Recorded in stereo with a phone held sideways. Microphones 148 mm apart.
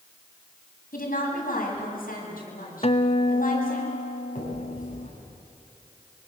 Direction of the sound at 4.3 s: 60° left (ahead or behind).